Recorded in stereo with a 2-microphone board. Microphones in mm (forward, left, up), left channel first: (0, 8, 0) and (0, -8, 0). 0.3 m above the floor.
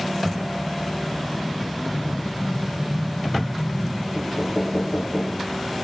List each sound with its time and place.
1.9 s an explosion: 75° left (ahead or behind), 4 m
4.2 s knocking: 55° left (ahead or behind), 4.5 m